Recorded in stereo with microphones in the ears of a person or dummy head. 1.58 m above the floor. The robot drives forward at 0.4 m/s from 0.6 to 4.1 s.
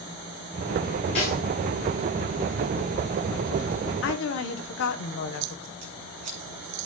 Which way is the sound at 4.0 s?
75° left (ahead or behind).